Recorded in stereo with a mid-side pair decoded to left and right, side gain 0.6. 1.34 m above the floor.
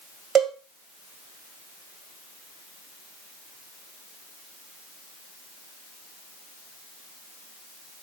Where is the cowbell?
45° right, 1.8 m.